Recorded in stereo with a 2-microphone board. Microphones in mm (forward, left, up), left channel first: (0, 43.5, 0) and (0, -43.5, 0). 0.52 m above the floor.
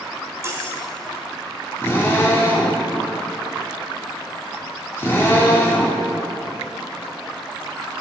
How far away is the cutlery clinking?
About 1.7 m.